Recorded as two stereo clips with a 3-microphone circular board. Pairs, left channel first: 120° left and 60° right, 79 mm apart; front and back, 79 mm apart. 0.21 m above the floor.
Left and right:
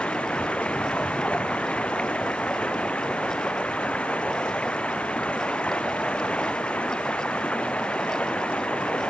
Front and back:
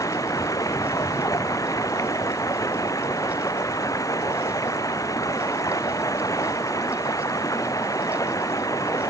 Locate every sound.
0.0 s running water: 45° left